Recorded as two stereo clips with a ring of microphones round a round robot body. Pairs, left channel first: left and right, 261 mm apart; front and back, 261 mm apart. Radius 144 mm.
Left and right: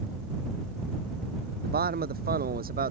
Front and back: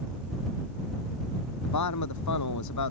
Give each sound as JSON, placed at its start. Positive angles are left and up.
{"t": 1.6, "sound": "a man speaking", "azimuth_deg": -35}